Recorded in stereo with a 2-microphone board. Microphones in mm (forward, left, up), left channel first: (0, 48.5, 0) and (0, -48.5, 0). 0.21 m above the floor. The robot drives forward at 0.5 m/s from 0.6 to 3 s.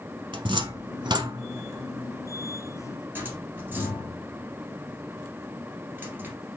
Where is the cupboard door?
55° right (ahead or behind), 0.5 m; by 6.3 s 20° right (ahead or behind), 1.3 m.